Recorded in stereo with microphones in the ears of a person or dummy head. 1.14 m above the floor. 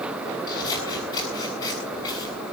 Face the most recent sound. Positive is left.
turn(degrees=25)  # may be behind; listen again after turning